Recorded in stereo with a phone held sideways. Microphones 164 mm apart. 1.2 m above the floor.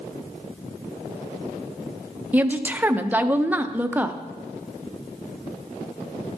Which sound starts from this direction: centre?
A woman speaking, at 2.3 s.